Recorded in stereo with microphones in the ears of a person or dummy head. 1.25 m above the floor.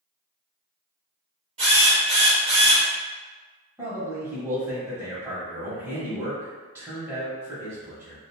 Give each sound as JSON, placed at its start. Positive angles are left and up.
{"t": 1.6, "sound": "a drill", "side_deg": -30, "distance_m": 1.2}
{"t": 3.8, "sound": "a man speaking", "side_deg": -15, "distance_m": 0.9}